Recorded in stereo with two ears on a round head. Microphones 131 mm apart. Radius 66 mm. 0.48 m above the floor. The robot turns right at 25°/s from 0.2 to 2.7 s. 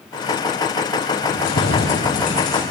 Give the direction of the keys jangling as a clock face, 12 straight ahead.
9 o'clock.